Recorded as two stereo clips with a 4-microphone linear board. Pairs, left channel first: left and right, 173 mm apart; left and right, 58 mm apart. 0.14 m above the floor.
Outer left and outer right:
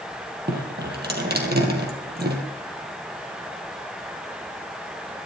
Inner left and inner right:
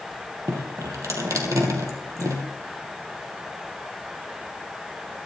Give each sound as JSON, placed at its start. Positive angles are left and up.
{"t": 0.5, "sound": "dripping", "side_deg": -70, "distance_m": 2.5}